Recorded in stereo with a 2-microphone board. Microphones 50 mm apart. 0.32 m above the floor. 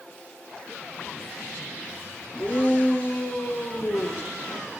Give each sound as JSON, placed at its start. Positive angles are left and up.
{"t": 2.4, "sound": "a shout", "side_deg": 35, "distance_m": 5.5}